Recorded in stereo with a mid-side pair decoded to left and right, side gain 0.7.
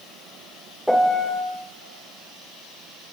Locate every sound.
0.9 s a piano: 5° left, 2.5 m